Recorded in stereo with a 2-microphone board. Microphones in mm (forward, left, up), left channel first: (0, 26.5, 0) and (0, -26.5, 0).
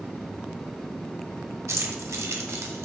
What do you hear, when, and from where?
1.7 s keys jangling: 70° right (ahead or behind), 1.3 m; by 2.9 s 65° right (ahead or behind), 1.7 m